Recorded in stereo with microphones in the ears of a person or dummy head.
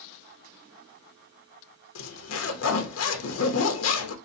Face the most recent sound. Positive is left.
turn(degrees=75)  # may be behind; listen again after turning